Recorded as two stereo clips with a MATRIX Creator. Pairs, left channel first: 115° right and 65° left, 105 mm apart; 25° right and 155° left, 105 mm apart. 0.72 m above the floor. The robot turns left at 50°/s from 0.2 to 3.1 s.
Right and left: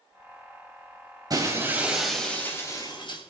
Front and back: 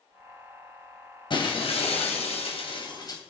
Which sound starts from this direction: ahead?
Breaking glass, at 1.3 s.